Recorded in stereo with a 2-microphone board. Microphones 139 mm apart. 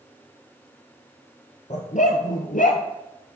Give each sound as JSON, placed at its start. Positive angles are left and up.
{"t": 1.7, "sound": "a dog barking", "side_deg": 55, "distance_m": 1.2}